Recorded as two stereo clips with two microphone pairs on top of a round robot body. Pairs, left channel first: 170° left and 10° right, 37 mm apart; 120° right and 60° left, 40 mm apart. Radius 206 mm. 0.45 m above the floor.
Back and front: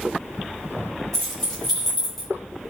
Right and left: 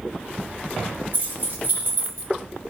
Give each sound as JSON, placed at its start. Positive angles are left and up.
{"t": 1.1, "sound": "keys jangling", "azimuth_deg": 95, "distance_m": 2.0}